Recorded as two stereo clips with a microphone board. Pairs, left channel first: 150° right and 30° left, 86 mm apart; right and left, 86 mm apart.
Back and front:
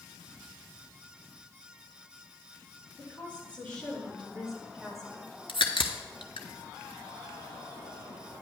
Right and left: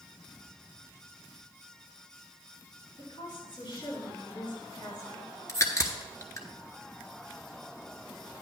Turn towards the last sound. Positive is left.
turn(degrees=-145)